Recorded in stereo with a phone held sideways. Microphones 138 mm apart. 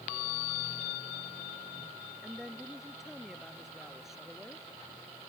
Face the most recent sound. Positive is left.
turn(degrees=-5)  # may be behind; listen again after turning